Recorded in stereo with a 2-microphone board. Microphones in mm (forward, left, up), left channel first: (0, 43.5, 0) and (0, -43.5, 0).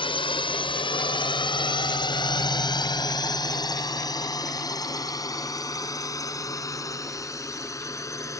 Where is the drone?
80° left; by 8.4 s 35° left (ahead or behind).